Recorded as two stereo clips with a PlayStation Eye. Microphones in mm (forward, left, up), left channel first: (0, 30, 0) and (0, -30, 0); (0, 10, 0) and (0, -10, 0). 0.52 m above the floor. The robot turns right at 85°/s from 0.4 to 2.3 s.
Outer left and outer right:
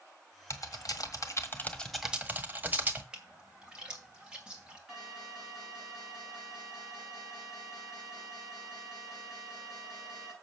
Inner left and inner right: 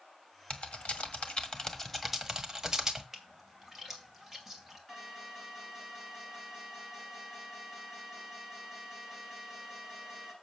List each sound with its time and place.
0.5 s typing on a keyboard: 55° left (ahead or behind), 1.5 m; by 3.0 s 25° right (ahead or behind), 1.5 m
3.1 s a splash: 15° right (ahead or behind), 2.5 m
4.9 s an alarm: 5° right (ahead or behind), 7 m